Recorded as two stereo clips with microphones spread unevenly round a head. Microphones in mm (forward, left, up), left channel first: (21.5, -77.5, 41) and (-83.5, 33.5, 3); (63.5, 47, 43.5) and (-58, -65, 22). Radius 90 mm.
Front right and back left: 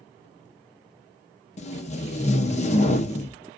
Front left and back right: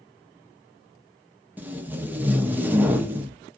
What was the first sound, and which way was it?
Tape being pulled, 80° right.